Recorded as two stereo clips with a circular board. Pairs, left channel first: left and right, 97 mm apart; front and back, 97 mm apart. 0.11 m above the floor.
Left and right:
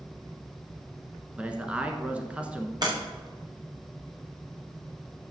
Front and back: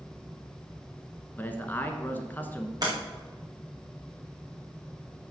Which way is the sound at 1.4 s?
35° right.